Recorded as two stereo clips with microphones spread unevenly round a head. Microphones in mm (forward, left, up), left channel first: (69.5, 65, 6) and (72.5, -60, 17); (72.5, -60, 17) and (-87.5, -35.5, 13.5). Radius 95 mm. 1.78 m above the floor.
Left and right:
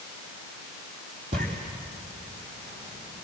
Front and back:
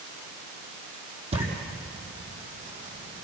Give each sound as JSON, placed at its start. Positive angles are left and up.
{"t": 1.3, "sound": "footsteps", "azimuth_deg": -140, "distance_m": 4.5}